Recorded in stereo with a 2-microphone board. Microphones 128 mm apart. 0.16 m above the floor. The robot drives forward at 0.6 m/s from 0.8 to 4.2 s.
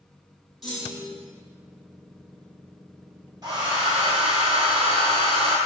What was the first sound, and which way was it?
A clunk, centre (ahead or behind).